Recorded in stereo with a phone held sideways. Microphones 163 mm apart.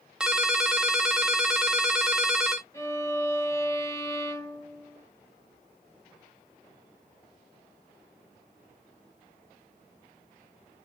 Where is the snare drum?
I don't hear a snare drum.